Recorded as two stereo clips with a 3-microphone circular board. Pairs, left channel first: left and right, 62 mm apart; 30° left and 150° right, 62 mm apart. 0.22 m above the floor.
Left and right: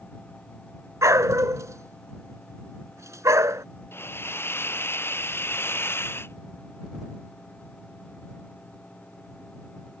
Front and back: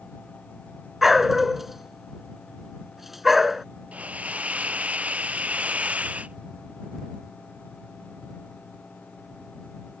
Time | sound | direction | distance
1.0 | a dog barking | 65° right | ?
3.9 | a hiss | 140° left | ?